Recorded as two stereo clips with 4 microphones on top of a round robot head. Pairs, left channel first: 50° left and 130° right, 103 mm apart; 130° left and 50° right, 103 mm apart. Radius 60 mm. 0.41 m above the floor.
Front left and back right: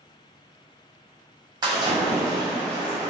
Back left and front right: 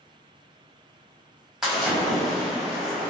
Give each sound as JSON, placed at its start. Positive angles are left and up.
{"t": 1.6, "sound": "a splash", "azimuth_deg": -130, "distance_m": 1.1}